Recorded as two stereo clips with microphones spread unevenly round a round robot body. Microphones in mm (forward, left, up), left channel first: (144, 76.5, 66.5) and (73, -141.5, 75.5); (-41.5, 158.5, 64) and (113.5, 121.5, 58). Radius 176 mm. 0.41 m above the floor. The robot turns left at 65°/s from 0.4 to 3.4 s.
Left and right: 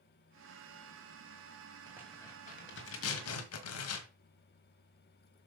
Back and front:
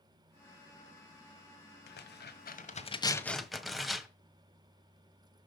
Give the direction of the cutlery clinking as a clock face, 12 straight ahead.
I don't hear cutlery clinking.